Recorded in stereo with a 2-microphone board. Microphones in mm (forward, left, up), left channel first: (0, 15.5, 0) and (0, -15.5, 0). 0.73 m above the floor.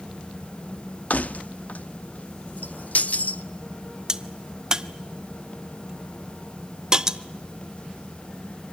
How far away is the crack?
About 0.7 m.